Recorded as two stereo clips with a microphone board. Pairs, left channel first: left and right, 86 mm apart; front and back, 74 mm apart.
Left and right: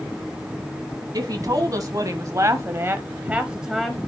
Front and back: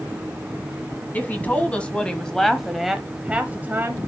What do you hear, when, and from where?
1.1 s a woman speaking: 60° right, 1.6 m; by 4.1 s 175° left, 1.1 m